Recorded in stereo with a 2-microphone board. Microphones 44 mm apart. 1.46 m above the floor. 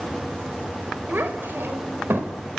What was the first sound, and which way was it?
A child speaking, 50° right (ahead or behind).